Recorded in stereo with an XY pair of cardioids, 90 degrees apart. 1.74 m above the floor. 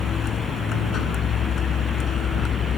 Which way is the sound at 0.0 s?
60° left.